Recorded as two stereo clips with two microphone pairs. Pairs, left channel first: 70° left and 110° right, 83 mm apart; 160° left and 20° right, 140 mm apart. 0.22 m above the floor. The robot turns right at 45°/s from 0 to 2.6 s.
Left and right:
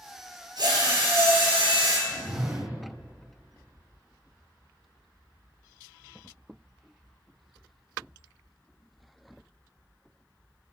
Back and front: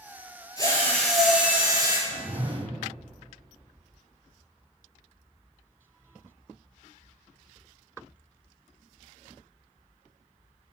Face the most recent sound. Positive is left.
turn(degrees=-45)